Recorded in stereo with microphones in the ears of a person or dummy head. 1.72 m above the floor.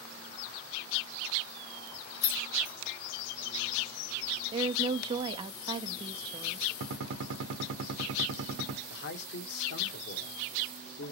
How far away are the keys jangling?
About 1.5 m.